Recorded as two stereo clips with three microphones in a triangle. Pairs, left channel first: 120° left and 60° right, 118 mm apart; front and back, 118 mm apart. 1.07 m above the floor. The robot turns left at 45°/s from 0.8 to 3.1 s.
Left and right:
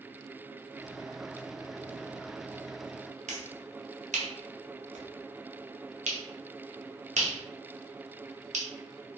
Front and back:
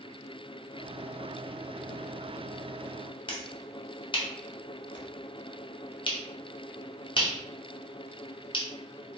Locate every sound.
3.3 s a finger snap: 50° right, 0.5 m